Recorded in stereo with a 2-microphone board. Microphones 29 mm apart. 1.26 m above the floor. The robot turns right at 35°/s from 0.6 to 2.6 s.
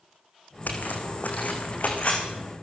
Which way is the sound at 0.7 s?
75° left (ahead or behind).